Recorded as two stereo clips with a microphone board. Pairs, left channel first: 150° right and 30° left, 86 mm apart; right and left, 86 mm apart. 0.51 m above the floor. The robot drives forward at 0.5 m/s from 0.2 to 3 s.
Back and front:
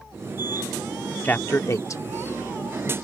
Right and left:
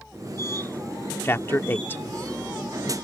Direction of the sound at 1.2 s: 110° right.